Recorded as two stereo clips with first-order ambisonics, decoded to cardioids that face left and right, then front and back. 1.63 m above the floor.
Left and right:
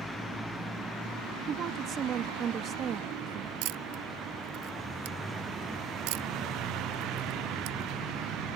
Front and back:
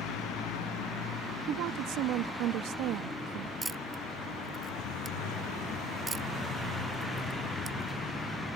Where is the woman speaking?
145° right.